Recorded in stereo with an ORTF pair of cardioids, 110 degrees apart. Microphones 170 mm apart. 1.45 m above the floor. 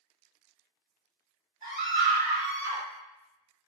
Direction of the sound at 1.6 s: 60° right.